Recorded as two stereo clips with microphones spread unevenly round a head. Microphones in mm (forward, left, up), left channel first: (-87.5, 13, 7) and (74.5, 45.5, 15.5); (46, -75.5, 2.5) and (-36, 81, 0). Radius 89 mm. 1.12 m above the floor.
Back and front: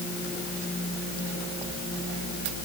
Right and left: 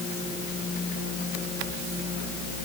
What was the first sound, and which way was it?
Only background noise.